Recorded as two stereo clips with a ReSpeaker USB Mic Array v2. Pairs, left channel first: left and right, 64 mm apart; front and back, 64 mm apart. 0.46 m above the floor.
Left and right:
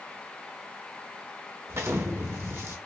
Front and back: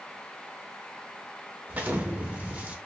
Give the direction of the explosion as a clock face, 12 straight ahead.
4 o'clock.